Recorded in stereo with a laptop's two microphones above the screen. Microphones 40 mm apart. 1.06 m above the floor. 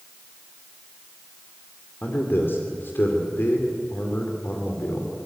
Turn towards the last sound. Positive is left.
turn(degrees=60)  # may be behind; listen again after turning